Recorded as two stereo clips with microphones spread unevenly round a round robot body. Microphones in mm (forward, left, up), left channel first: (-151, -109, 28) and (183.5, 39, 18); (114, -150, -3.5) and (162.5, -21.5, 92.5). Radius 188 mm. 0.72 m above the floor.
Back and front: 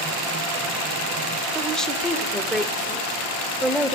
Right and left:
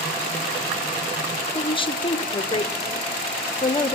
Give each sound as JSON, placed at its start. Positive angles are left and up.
{"t": 1.6, "sound": "a woman speaking", "azimuth_deg": -70, "distance_m": 2.0}